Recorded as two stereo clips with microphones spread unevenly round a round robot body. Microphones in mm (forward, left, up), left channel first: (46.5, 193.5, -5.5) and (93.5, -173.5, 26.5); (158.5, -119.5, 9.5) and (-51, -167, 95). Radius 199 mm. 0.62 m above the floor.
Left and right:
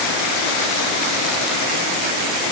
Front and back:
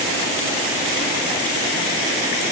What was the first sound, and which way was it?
Only background noise.